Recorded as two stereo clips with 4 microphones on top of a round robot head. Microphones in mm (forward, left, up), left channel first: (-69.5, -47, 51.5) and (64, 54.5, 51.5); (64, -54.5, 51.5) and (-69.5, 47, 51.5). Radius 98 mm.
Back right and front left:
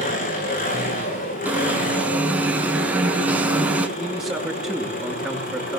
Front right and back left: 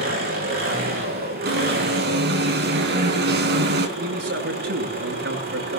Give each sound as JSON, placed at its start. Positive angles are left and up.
{"t": 0.0, "sound": "an engine running", "azimuth_deg": 175, "distance_m": 8.5}
{"t": 1.4, "sound": "an alarm", "azimuth_deg": 120, "distance_m": 4.0}
{"t": 4.0, "sound": "a man speaking", "azimuth_deg": 125, "distance_m": 8.5}